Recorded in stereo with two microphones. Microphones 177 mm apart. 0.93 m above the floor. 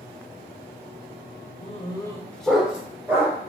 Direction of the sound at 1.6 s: 40° left (ahead or behind).